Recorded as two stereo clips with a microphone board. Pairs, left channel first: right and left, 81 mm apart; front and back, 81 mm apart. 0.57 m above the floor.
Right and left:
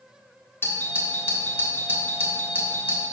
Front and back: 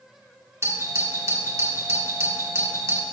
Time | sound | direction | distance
0.6 | a doorbell | 140° right | 1.5 m